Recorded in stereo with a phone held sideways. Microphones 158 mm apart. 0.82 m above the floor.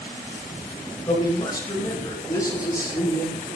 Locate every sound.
1.1 s a man speaking: 25° left (ahead or behind), 5 m; by 3.5 s 20° left (ahead or behind), 7.5 m